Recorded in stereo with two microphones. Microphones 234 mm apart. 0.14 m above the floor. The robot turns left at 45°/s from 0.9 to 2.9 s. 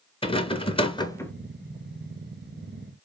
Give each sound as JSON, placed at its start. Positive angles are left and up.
{"t": 0.2, "sound": "a rattle", "side_deg": 25, "distance_m": 0.5}